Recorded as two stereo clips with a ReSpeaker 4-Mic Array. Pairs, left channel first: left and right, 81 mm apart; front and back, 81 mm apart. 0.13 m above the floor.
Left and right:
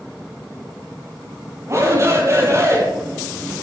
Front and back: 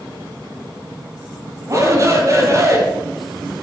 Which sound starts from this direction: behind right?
A shout, at 1.7 s.